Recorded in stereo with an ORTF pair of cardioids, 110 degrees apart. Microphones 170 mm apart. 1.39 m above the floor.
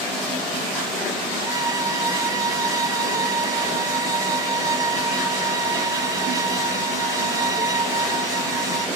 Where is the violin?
20° right, 0.5 m.